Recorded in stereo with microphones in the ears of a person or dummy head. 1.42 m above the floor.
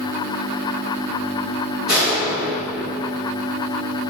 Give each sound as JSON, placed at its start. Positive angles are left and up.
{"t": 1.9, "sound": "a door slam", "side_deg": -5, "distance_m": 3.5}